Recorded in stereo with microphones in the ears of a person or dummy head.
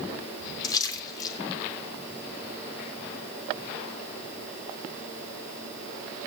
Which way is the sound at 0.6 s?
25° left (ahead or behind).